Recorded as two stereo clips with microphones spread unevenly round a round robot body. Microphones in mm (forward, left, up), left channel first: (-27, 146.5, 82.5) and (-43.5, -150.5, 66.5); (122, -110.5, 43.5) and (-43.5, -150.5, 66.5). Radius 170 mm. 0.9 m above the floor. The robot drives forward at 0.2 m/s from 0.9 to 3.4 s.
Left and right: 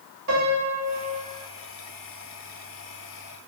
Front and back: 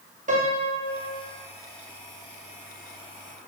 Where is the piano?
120° right, 2 m.